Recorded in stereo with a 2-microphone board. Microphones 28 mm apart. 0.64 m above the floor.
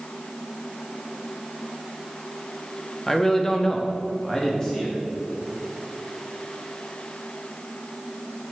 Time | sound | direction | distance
3.1 | a man speaking | 10° left (ahead or behind) | 0.5 m